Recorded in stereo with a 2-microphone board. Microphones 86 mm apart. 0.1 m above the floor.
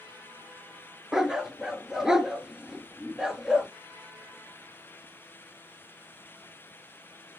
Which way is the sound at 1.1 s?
5° right (ahead or behind).